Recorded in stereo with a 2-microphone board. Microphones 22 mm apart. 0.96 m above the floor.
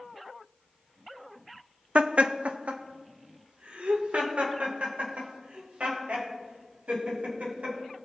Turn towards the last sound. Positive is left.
turn(degrees=-85)